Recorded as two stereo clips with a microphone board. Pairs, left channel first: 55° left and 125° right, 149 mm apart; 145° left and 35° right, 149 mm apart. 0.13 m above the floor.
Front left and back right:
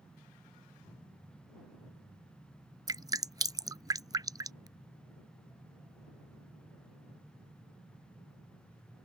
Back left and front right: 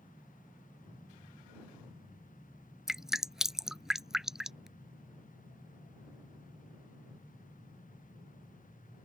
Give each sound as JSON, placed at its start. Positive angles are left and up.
{"t": 2.9, "sound": "dripping", "azimuth_deg": -115}